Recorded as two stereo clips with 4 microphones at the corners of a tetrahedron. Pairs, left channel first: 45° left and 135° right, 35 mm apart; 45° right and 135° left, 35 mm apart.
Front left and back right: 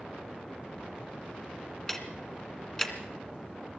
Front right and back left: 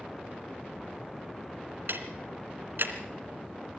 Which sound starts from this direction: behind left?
Ticking, at 1.9 s.